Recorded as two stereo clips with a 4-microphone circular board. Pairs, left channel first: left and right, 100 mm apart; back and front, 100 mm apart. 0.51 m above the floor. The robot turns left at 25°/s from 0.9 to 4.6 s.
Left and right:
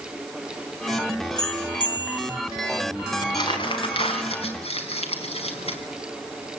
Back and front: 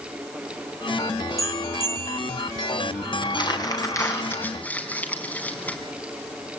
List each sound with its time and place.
1.4 s a bell: 130° left, 1.8 m; by 2.4 s 105° left, 1.8 m
3.2 s crumpling: 140° left, 4 m; by 5.8 s 105° left, 4 m